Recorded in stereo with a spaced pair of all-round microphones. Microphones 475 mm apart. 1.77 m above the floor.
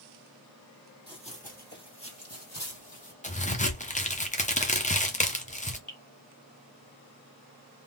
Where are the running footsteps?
10° left (ahead or behind), 1.9 m; by 3.1 s 40° left (ahead or behind), 2.5 m.